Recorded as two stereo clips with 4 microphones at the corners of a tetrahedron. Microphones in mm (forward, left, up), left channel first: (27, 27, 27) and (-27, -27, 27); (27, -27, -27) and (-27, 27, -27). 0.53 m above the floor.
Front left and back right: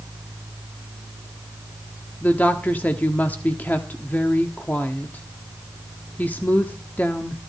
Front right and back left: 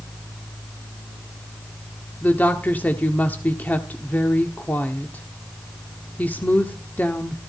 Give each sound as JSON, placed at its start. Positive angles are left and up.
{"t": 2.2, "sound": "a woman speaking", "azimuth_deg": -5, "distance_m": 1.2}